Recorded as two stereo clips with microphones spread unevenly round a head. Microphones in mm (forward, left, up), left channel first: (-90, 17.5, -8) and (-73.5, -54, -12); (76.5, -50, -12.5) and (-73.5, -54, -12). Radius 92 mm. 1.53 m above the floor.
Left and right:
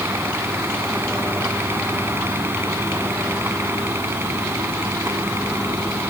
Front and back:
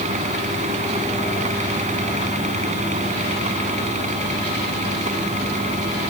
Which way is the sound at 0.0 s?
135° right.